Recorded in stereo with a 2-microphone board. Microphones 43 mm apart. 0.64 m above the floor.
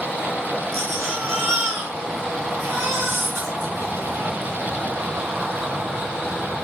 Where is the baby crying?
80° right, 3.5 m.